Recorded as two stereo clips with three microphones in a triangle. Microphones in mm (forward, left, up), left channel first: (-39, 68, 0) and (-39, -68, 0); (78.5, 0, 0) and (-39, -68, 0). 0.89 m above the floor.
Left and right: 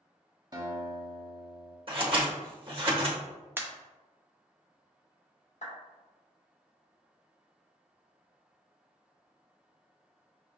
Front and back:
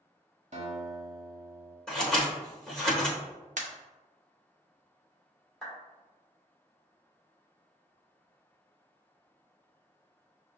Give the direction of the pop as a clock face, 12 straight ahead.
5 o'clock.